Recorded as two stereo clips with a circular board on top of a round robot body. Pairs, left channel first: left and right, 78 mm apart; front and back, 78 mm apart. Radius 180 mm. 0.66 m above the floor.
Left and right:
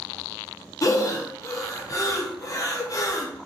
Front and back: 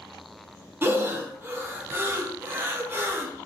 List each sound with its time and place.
0.8 s breathing: 125° left, 0.9 m